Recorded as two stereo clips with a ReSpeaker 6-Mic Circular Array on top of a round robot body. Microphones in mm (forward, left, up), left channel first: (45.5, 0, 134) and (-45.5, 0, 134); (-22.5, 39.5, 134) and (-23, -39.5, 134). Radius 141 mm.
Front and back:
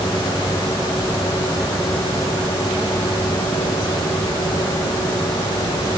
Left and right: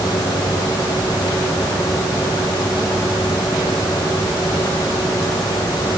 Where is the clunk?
No clunk in this recording.